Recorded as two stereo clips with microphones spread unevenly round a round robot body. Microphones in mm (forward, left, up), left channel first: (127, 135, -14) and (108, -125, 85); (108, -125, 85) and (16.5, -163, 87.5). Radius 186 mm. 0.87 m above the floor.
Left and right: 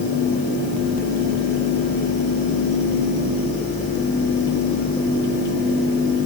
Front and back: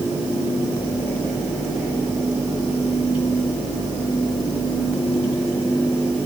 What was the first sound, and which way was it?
Only background noise.